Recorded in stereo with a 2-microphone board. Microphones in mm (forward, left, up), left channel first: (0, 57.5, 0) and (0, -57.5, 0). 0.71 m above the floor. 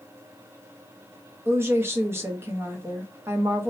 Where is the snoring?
I don't hear snoring.